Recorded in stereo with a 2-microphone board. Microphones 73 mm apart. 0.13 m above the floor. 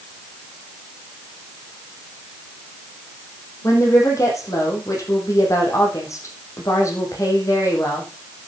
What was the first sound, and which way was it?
A woman speaking, 45° left (ahead or behind).